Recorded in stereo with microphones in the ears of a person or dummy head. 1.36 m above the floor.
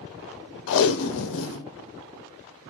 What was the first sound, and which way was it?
Tape being pulled, 75° left (ahead or behind).